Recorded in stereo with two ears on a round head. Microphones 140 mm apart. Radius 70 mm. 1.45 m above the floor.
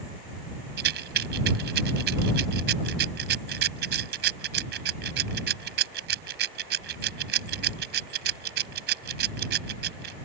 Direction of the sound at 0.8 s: 70° right (ahead or behind).